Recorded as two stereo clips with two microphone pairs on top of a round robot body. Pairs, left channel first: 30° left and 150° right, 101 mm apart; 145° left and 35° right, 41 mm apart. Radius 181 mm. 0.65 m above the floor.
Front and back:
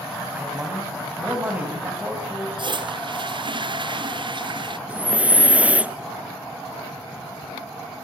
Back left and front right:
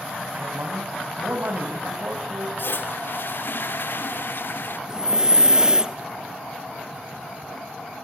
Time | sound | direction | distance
0.3 | a man speaking | 75° right | 5 m
2.6 | a toilet flushing | 175° left | 1.2 m
4.9 | breathing | 100° right | 1.2 m